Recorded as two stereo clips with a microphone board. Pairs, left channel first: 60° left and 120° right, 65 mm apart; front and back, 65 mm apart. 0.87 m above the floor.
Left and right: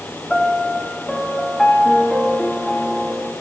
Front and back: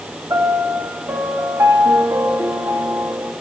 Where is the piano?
145° left, 1.6 m.